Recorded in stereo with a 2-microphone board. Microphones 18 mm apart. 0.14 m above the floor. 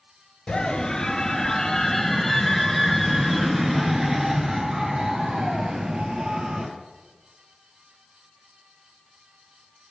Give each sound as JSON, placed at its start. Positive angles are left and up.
{"t": 0.5, "sound": "a scream", "side_deg": 45, "distance_m": 1.8}